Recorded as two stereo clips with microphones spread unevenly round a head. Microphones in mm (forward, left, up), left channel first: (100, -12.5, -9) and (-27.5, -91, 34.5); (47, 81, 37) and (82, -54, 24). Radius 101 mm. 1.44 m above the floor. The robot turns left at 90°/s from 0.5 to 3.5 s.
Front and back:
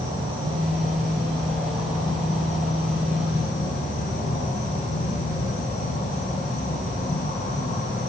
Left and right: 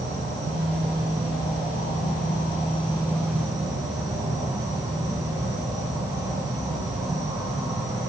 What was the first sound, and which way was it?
An insect, 100° right.